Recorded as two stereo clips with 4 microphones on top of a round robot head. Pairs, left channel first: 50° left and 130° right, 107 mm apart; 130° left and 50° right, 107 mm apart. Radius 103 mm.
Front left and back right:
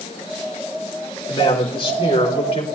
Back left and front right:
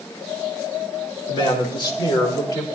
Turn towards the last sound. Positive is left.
turn(degrees=80)